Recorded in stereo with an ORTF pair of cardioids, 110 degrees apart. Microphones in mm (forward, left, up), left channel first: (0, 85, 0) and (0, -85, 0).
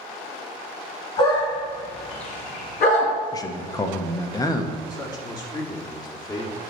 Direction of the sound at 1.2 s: 25° left.